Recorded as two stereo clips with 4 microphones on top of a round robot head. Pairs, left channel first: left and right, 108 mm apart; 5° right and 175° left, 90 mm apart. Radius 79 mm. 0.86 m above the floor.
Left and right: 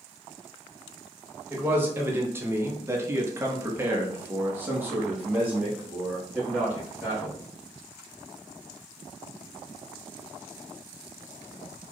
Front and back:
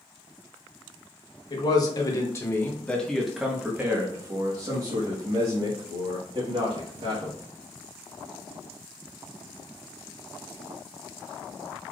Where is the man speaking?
20° right, 1.2 m; by 7.4 s 170° right, 2.5 m.